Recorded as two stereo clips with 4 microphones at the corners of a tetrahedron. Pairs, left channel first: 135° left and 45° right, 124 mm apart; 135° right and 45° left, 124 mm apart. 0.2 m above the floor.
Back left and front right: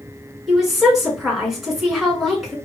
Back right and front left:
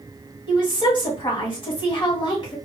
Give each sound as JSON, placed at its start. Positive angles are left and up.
{"t": 0.5, "sound": "a woman speaking", "azimuth_deg": -135, "distance_m": 1.6}